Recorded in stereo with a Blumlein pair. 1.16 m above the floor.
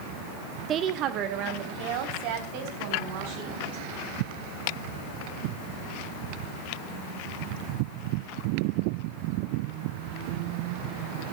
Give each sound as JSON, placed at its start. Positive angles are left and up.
{"t": 0.7, "sound": "a woman speaking", "azimuth_deg": -25, "distance_m": 1.0}